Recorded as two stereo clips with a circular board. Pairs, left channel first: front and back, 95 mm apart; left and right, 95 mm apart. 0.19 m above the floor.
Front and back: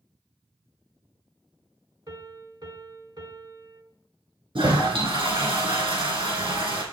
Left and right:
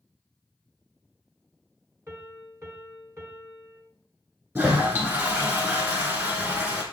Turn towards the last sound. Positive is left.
turn(degrees=-150)